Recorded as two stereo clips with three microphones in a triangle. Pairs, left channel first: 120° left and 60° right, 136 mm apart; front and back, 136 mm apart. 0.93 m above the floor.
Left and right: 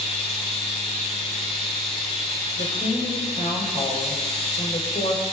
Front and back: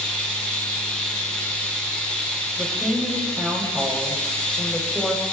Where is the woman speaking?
100° left, 4.5 m.